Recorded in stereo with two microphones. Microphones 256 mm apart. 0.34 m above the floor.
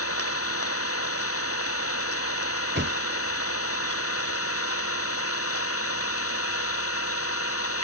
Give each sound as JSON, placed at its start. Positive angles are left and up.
{"t": 0.0, "sound": "an engine running", "side_deg": 70}
{"t": 2.8, "sound": "a thud", "side_deg": -50}